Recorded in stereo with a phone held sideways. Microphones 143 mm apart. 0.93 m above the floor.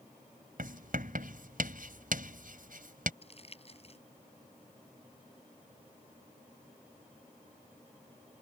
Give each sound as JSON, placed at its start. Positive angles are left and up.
{"t": 0.6, "sound": "writing", "side_deg": -75}
{"t": 3.2, "sound": "crumpling", "side_deg": 45}